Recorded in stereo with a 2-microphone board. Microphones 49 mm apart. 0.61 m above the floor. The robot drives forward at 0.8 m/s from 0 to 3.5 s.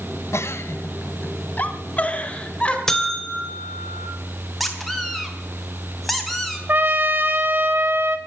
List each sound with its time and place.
0.3 s a giggle: 70° left (ahead or behind), 1.0 m; by 2.8 s 20° left (ahead or behind), 2.5 m
2.9 s a buzzer: 10° left (ahead or behind), 1.9 m; by 4.1 s 5° left (ahead or behind), 2.5 m
4.6 s a squeak: centre (ahead or behind), 2.5 m
6.7 s a trumpet: 45° right (ahead or behind), 1.4 m